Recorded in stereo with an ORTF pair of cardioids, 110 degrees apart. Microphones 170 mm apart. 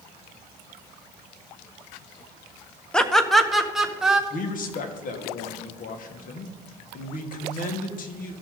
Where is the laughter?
5° left, 0.9 m; by 4.2 s 5° right, 1.8 m.